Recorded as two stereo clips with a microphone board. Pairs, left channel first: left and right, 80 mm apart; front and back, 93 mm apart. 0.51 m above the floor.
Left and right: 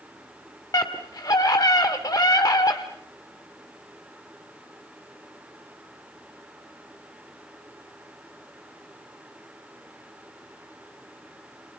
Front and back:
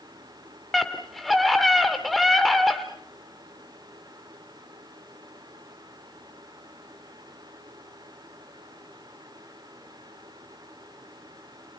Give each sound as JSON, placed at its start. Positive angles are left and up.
{"t": 0.7, "sound": "a scream", "azimuth_deg": 90, "distance_m": 1.1}